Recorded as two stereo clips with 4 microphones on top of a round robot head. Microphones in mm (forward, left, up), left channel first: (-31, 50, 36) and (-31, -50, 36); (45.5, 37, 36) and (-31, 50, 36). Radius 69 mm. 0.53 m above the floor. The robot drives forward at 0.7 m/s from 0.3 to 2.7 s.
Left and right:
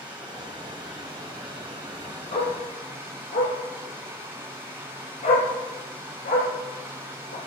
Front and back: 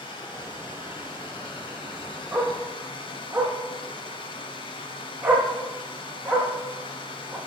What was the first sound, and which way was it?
Running water, 10° right.